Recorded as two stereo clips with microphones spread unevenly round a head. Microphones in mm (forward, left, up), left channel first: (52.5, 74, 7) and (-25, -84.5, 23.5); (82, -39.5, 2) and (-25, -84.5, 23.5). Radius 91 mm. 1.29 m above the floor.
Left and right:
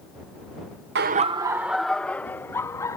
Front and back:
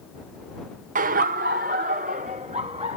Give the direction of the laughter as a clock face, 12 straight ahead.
5 o'clock.